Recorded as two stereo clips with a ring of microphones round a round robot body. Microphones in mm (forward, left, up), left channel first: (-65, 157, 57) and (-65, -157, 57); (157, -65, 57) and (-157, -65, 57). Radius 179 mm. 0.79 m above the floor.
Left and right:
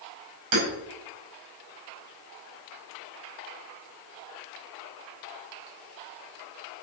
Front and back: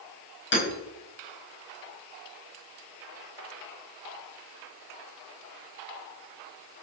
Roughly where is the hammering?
Ahead right.